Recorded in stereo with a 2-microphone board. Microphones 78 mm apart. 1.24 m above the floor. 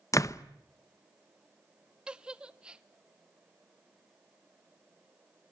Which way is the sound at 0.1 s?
45° left (ahead or behind).